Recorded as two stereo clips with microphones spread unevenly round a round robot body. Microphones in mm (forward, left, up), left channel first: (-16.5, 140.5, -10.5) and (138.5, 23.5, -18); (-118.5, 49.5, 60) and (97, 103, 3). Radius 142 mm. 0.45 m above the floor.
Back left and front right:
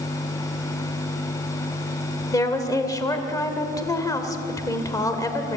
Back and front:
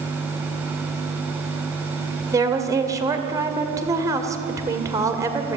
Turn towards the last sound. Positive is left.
turn(degrees=75)